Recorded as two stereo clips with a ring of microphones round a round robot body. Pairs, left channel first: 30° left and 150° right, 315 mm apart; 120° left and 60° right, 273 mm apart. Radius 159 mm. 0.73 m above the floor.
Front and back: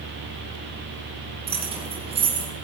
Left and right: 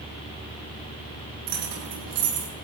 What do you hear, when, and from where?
1.5 s keys jangling: 75° right, 7.5 m